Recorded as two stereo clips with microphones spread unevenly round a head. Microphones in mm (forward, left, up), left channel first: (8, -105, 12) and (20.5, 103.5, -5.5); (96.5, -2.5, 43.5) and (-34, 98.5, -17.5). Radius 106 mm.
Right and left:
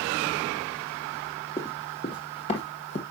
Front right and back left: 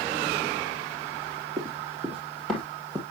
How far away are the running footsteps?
About 1.6 m.